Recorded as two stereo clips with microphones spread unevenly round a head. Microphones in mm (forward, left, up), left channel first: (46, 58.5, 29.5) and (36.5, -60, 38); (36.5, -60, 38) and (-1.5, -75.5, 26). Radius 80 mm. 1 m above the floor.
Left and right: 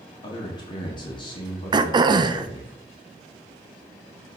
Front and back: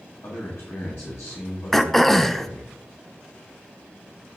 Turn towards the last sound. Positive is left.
turn(degrees=-85)